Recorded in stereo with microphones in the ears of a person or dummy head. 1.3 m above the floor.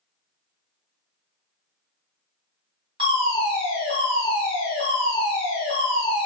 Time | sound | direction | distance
3.0 | a fire alarm | 30° right (ahead or behind) | 1.5 m